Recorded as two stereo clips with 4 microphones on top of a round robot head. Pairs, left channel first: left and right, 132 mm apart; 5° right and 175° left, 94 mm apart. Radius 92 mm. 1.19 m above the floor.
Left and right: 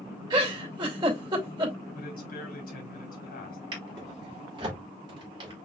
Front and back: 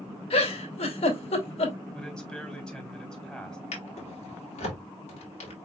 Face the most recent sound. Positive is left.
turn(degrees=-25)